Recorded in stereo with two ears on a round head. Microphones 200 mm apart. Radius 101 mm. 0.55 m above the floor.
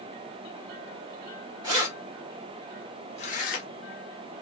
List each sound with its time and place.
1.6 s keys jangling: 15° right (ahead or behind), 1.3 m; by 3.7 s 45° left (ahead or behind), 1.0 m